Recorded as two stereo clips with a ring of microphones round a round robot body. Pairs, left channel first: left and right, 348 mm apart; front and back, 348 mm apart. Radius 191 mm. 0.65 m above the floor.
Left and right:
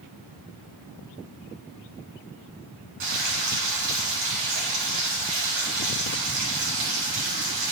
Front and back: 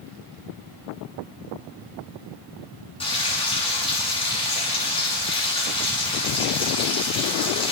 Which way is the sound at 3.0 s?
75° right.